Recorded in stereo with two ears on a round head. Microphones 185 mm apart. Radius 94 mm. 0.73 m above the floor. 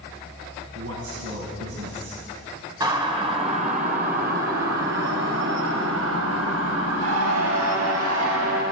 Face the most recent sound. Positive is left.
turn(degrees=-85)